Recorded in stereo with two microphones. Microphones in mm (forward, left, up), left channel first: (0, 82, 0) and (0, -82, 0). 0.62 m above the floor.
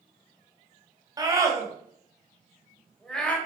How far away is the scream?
About 4.5 m.